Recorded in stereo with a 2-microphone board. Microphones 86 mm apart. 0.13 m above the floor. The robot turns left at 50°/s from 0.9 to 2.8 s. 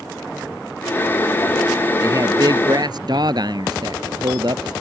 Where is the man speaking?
50° right; by 4.7 s 90° right.